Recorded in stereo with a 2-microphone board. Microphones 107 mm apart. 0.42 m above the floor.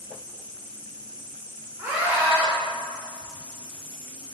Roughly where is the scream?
Centre.